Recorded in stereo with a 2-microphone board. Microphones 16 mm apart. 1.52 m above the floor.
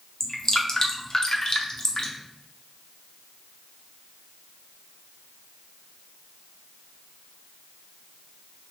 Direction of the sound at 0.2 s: 40° left (ahead or behind).